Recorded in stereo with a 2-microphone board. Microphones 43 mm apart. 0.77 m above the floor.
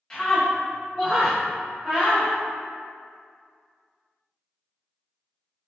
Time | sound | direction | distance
0.1 | a scream | 15° left (ahead or behind) | 0.7 m